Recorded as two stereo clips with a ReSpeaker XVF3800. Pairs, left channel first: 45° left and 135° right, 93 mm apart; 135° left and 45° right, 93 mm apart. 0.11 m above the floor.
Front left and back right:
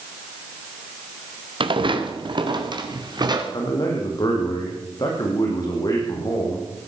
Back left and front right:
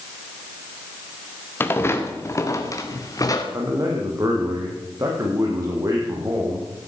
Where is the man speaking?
5° left, 4.5 m.